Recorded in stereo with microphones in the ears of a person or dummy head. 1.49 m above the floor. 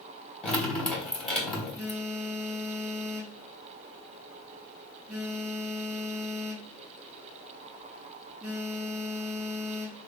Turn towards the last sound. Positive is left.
turn(degrees=0)  # may be behind; listen again after turning